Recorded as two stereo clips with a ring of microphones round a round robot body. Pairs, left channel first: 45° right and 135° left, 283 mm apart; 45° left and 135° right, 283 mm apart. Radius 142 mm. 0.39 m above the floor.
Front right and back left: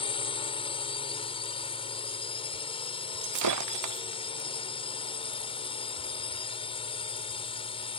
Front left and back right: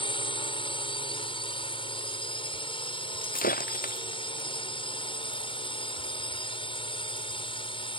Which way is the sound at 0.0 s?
Straight ahead.